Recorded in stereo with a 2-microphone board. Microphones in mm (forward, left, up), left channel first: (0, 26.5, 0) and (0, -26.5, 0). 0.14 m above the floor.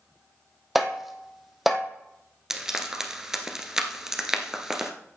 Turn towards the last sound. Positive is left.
turn(degrees=-10)  # may be behind; listen again after turning